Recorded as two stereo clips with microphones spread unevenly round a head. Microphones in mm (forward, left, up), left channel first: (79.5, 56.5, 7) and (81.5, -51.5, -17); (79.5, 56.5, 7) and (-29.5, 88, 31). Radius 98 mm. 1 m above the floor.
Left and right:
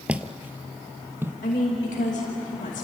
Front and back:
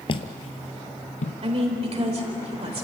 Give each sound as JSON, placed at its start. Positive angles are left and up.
{"t": 0.1, "sound": "footsteps", "azimuth_deg": 5, "distance_m": 1.1}
{"t": 1.4, "sound": "a woman speaking", "azimuth_deg": 135, "distance_m": 4.5}